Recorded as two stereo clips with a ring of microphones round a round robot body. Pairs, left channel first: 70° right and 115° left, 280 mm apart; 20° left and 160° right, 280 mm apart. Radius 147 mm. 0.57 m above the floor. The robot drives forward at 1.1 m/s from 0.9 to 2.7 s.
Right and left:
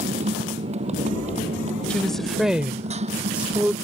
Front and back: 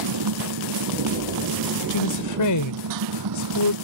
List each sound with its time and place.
0.0 s a motorcycle: straight behind
1.9 s a woman speaking: 20° left; by 3.7 s 25° left